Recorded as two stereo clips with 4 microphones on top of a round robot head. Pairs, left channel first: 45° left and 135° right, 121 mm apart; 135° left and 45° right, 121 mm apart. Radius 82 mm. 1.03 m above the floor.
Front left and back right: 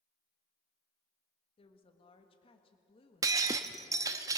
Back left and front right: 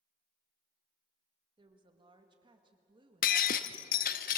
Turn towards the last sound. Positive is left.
turn(degrees=160)